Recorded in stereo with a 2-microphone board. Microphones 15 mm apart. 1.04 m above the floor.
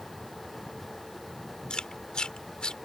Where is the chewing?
65° left (ahead or behind).